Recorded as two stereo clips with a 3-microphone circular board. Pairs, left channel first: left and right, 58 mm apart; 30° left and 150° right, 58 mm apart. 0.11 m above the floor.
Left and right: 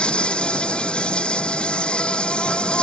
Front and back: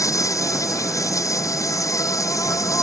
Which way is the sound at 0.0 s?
20° left.